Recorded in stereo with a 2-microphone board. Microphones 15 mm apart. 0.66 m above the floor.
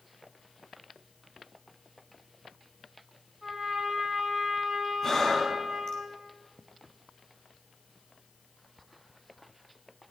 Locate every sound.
3.4 s a trumpet: 10° right (ahead or behind), 4.5 m
5.0 s breathing: 35° left (ahead or behind), 4.5 m